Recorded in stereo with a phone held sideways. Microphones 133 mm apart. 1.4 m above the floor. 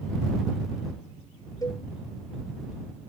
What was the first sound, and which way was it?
A cowbell, 30° left (ahead or behind).